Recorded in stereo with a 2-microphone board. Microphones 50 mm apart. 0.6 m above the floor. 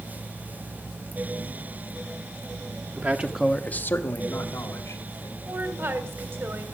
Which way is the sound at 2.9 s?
45° right (ahead or behind).